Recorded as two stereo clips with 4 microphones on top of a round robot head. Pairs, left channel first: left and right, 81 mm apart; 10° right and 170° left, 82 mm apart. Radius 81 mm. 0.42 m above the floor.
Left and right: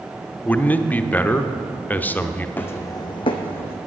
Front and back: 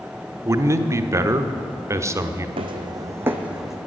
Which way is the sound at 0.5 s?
145° left.